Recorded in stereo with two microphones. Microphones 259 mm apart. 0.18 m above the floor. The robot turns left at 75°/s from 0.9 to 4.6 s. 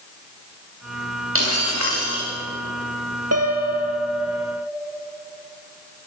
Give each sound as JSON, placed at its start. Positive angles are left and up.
{"t": 1.4, "sound": "breaking glass", "azimuth_deg": -55, "distance_m": 9.0}
{"t": 3.3, "sound": "a piano", "azimuth_deg": -75, "distance_m": 3.0}